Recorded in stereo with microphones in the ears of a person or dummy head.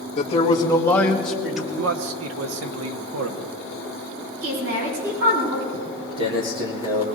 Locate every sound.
0.2 s a man speaking: 30° left (ahead or behind), 1.5 m; by 1.7 s 5° right (ahead or behind), 2.5 m
1.8 s a man speaking: 80° right, 1.4 m
4.4 s a woman speaking: 80° right, 7.5 m
5.7 s footsteps: 40° right (ahead or behind), 1.7 m; by 7.0 s 20° right (ahead or behind), 2 m